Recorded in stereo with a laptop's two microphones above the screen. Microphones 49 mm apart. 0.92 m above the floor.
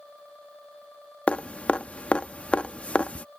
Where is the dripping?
25° left (ahead or behind).